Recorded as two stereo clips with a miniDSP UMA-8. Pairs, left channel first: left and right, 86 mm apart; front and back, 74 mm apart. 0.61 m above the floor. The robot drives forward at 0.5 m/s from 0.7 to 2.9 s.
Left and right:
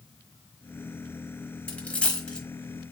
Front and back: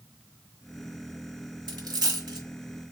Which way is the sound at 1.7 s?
165° left.